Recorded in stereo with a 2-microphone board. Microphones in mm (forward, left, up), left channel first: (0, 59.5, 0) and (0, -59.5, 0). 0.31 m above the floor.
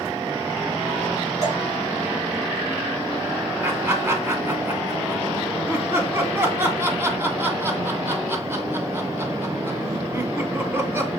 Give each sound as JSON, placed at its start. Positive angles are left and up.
{"t": 1.4, "sound": "dripping", "side_deg": -80, "distance_m": 5.5}
{"t": 3.6, "sound": "laughter", "side_deg": -20, "distance_m": 2.0}